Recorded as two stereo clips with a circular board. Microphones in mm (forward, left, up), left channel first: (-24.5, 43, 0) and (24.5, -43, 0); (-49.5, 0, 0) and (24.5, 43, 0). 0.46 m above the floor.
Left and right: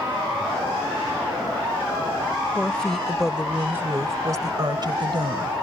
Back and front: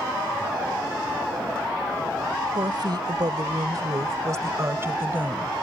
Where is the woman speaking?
45° left; by 5.5 s 40° right.